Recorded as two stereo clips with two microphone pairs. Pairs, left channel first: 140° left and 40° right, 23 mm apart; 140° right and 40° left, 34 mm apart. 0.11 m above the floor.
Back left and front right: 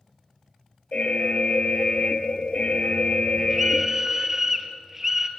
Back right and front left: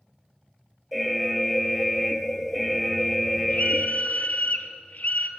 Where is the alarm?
135° left, 1.6 m.